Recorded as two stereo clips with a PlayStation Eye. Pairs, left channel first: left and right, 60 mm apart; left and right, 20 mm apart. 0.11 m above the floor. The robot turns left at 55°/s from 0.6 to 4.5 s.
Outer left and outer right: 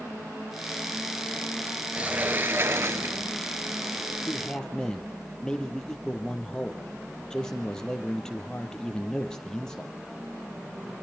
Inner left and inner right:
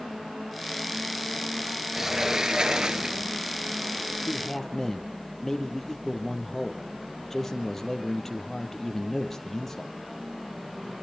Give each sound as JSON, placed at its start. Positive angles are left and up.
{"t": 1.9, "sound": "a sliding door", "azimuth_deg": -30, "distance_m": 0.9}
{"t": 4.3, "sound": "a man speaking", "side_deg": 20, "distance_m": 3.5}